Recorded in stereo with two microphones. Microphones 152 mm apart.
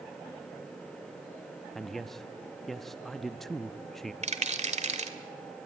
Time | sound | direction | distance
1.8 | a man speaking | centre (ahead or behind) | 0.7 m
4.2 | a rattle | 50° right (ahead or behind) | 1.8 m